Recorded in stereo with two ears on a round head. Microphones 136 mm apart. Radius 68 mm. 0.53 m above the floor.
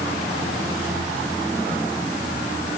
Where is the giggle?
No giggle in this recording.